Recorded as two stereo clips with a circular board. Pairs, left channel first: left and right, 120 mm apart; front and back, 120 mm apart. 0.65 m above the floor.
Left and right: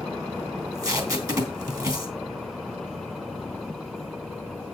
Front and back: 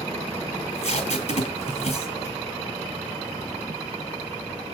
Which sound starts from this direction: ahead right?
Tape being pulled, at 0.6 s.